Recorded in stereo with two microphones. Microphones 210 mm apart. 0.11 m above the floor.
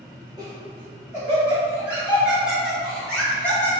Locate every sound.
0.4 s laughter: 15° right (ahead or behind), 1.9 m; by 3.7 s 10° left (ahead or behind), 1.5 m